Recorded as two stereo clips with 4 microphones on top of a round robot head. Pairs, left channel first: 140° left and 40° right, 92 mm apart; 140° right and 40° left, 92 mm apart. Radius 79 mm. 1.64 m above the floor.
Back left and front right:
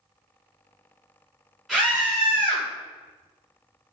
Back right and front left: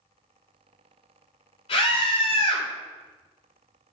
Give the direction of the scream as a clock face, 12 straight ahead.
4 o'clock.